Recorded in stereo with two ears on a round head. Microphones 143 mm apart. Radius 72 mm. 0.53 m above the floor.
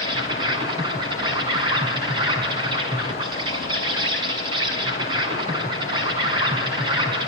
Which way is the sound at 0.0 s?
30° right (ahead or behind).